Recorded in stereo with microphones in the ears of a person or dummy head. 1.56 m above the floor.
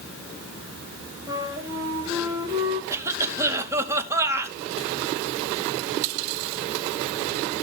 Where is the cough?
15° right (ahead or behind), 2 m.